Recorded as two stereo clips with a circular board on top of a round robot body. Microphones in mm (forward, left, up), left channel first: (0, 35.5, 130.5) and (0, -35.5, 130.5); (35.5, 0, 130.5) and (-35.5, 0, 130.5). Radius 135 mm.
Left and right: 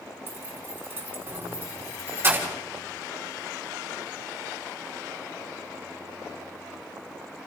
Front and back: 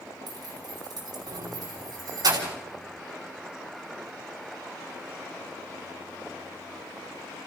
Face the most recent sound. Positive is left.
turn(degrees=-155)